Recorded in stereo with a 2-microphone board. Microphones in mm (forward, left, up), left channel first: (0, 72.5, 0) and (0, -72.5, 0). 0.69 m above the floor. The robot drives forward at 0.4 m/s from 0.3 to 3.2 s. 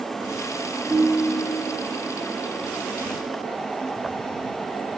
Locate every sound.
0.9 s a ringtone: 25° right (ahead or behind), 2 m